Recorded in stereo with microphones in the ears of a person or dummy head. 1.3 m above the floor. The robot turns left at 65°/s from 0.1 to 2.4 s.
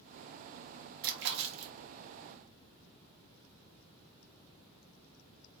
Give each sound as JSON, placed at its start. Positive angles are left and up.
{"t": 1.0, "sound": "a splash", "azimuth_deg": -55, "distance_m": 0.8}